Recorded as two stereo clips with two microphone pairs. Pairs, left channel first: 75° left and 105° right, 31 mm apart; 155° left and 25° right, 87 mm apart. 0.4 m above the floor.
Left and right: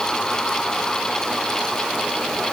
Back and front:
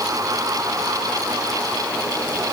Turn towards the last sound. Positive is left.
No sound to turn to.